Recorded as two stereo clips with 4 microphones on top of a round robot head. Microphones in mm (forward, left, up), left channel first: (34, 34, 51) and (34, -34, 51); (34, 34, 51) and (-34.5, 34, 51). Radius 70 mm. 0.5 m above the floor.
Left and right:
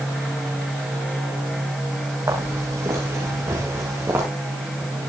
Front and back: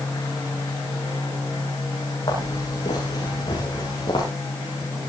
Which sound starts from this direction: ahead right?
Footsteps, at 2.3 s.